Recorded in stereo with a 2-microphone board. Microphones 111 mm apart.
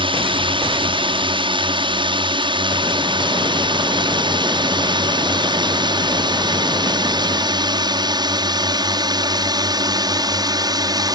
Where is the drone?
45° right (ahead or behind); by 11.2 s 35° right (ahead or behind).